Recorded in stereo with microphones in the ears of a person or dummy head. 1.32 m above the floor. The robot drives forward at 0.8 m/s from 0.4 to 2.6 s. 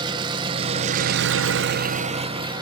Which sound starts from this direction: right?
An engine running, at 0.0 s.